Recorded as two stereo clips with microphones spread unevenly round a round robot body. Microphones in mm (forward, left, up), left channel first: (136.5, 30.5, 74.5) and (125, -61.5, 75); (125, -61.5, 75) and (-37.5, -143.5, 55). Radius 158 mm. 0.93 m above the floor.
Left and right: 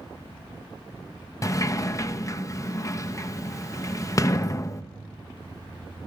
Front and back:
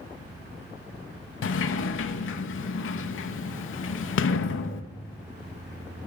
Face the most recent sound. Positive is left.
turn(degrees=20)